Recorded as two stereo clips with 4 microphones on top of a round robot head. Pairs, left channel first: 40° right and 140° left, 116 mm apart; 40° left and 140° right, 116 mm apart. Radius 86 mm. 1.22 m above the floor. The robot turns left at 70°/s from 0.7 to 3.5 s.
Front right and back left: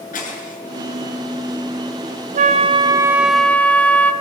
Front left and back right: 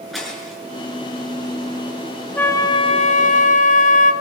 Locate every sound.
0.1 s breaking glass: 50° right, 8 m
2.4 s a flute: 120° left, 1.4 m; by 4.1 s 40° left, 1.4 m